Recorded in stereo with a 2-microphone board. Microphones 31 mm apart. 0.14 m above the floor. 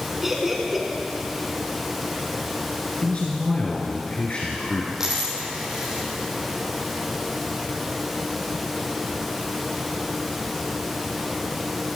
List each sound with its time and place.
0.2 s laughter: 10° right (ahead or behind), 1.8 m
3.0 s a man speaking: 45° left (ahead or behind), 1.8 m
5.0 s a dropped coin: 20° right (ahead or behind), 3 m